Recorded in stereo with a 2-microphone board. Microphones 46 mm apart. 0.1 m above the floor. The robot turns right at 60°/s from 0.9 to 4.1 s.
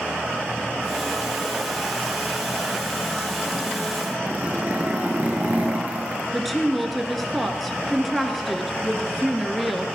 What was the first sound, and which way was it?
A zipper, 30° right (ahead or behind).